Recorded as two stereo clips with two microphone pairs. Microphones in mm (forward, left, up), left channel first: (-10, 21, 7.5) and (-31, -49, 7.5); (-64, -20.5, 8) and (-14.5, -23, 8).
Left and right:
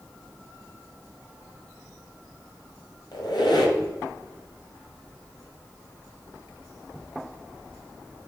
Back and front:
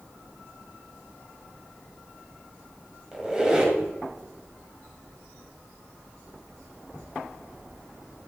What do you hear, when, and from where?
3.1 s a squeak: 75° left, 1.8 m